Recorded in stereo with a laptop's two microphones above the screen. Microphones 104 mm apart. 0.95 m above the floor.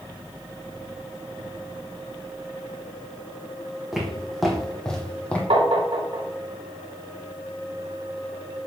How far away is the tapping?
About 1.3 m.